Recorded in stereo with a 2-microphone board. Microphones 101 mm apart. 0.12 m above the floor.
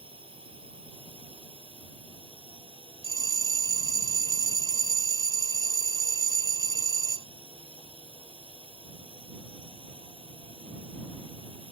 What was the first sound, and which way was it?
A drone, 60° right (ahead or behind).